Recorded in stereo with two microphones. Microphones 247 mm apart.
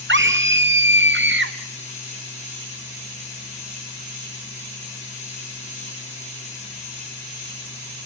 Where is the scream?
50° right (ahead or behind), 0.7 m.